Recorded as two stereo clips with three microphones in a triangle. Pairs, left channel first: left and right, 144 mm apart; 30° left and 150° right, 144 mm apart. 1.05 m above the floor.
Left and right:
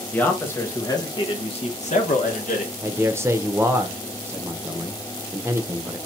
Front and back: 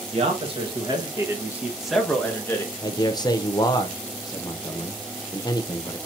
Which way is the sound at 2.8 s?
25° right.